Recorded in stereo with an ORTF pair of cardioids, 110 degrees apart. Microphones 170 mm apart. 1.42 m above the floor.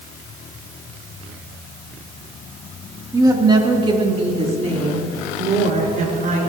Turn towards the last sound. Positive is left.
turn(degrees=-50)